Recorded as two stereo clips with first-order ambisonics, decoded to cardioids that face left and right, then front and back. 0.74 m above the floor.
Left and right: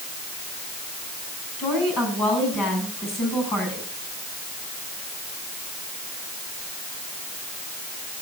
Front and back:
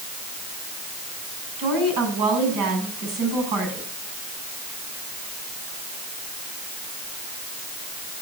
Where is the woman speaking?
150° left, 6.5 m.